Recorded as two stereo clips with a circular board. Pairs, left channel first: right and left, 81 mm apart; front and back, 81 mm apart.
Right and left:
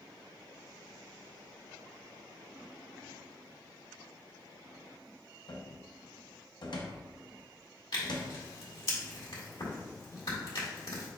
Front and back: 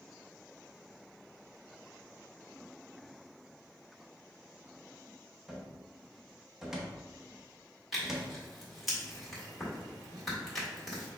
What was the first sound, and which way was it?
A cupboard door, 95° right.